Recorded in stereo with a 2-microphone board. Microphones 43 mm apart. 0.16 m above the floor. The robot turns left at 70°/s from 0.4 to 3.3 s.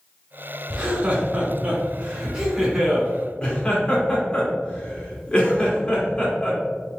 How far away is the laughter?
About 1.6 m.